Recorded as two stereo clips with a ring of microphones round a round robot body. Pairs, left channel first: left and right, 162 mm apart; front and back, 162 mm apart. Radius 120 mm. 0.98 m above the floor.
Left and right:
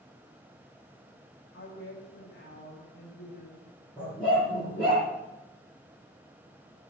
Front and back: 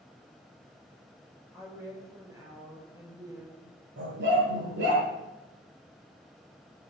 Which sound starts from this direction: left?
A woman speaking, at 1.5 s.